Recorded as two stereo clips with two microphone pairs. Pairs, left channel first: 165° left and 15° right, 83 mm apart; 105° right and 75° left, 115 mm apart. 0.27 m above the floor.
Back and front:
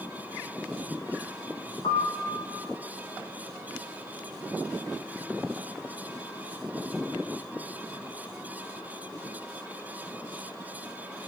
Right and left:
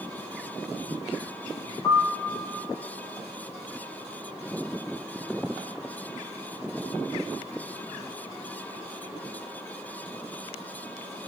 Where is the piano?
175° right, 2 m.